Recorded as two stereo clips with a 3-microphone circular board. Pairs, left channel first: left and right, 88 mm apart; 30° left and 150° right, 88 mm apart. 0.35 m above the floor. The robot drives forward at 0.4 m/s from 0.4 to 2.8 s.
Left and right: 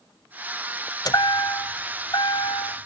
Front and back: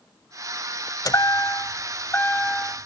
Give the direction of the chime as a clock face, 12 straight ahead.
10 o'clock.